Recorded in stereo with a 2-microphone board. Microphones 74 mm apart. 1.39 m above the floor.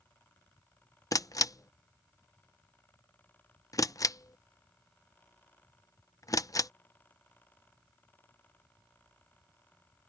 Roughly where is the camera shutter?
Left.